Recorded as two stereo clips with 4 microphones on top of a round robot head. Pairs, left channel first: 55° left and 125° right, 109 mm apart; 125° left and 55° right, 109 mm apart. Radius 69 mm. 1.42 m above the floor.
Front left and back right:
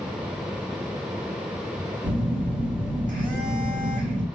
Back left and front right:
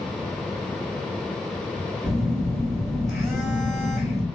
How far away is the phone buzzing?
About 1.4 m.